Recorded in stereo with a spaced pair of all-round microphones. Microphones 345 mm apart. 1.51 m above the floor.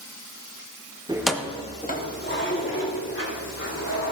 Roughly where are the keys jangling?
Centre.